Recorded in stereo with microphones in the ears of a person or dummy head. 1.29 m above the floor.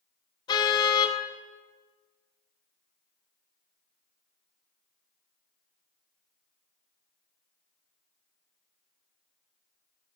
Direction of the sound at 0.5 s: 25° left (ahead or behind).